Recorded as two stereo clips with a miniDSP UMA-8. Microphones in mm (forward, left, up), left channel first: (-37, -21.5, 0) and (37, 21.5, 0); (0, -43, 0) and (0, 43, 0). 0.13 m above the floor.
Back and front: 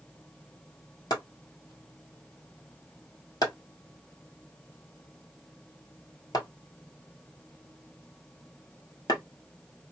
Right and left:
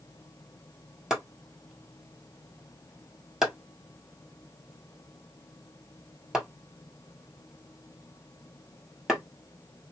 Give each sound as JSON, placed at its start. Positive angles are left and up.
{"t": 1.1, "sound": "chopping", "azimuth_deg": 175, "distance_m": 1.4}